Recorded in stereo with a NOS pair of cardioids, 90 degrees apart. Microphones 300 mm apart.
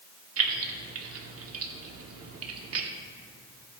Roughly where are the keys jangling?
Ahead right.